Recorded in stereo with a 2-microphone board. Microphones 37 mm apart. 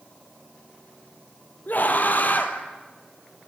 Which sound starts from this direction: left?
A scream, at 1.7 s.